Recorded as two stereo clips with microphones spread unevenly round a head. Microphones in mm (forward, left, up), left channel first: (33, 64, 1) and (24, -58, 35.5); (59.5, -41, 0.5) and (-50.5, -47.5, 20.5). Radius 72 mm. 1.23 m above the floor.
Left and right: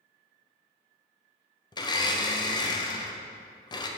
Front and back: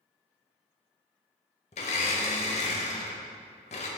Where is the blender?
35° left, 0.8 m.